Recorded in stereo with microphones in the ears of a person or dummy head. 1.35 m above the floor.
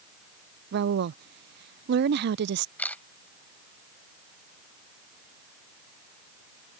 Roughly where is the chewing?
No chewing in this recording.